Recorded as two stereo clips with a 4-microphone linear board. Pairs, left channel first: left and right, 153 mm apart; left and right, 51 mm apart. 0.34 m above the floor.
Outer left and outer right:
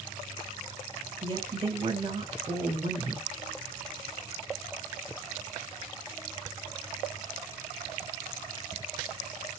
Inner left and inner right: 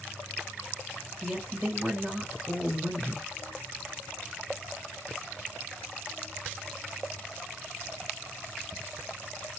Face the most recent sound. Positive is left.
turn(degrees=-40)  # may be behind; listen again after turning